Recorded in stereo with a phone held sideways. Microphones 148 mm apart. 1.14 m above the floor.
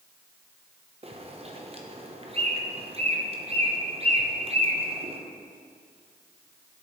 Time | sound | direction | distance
1.0 | a bird | 40° right (ahead or behind) | 0.8 m